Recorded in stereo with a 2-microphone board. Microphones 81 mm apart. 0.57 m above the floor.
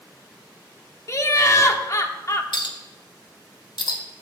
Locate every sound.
1.1 s laughter: 40° left (ahead or behind), 0.9 m
2.5 s a clink: 75° left (ahead or behind), 1.1 m